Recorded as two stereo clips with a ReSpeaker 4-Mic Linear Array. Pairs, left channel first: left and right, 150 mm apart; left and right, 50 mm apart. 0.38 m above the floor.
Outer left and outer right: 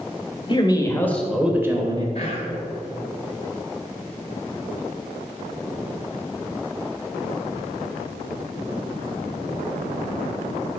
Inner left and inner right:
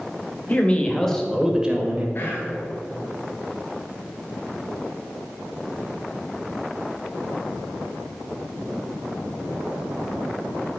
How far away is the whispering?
About 2.5 m.